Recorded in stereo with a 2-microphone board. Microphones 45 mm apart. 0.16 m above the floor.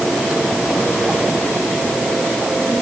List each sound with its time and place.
Only background noise.